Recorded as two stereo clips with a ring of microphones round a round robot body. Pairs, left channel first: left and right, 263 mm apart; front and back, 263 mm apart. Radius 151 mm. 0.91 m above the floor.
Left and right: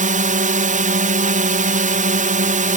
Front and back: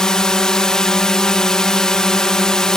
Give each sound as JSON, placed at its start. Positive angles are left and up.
{"t": 0.0, "sound": "a drone", "azimuth_deg": -85}